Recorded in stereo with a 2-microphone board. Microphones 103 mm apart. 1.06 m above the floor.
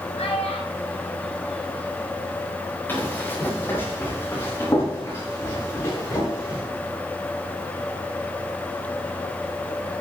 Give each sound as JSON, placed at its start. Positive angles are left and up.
{"t": 0.2, "sound": "a child speaking", "side_deg": 80, "distance_m": 4.0}
{"t": 2.9, "sound": "running footsteps", "side_deg": 20, "distance_m": 8.5}